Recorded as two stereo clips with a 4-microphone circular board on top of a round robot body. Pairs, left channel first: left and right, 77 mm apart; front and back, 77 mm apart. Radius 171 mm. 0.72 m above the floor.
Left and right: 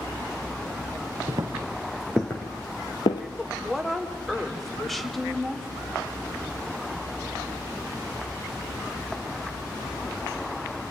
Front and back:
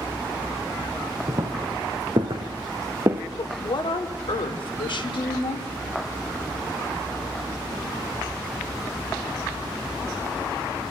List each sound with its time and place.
1.3 s footsteps: 130° right, 1.0 m; by 3.2 s 115° left, 1.2 m
3.4 s a woman speaking: straight ahead, 2.5 m